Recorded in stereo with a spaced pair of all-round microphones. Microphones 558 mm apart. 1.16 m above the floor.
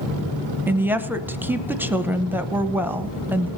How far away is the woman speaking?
About 0.8 m.